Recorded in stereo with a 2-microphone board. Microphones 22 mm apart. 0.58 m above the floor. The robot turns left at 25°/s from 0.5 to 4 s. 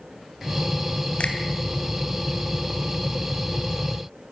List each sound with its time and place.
1.2 s a finger snap: 75° left (ahead or behind), 2.5 m; by 1.4 s 70° left (ahead or behind), 2.5 m